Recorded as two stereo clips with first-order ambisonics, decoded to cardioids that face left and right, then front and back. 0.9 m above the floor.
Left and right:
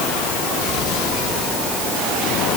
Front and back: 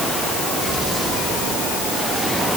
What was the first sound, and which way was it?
Only background noise.